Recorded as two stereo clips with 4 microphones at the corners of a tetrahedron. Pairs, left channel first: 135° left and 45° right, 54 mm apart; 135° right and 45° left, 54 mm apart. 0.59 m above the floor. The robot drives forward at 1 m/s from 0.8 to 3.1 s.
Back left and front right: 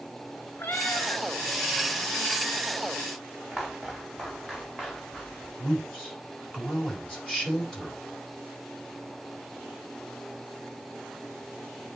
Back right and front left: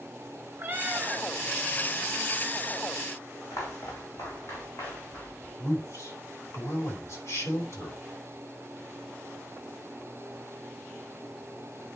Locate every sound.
0.6 s a cat meowing: 95° left, 1.6 m; by 1.2 s 110° left, 1.7 m
3.5 s footsteps: 140° right, 2.5 m; by 5.5 s 155° right, 4 m
5.6 s a man speaking: 155° right, 3.5 m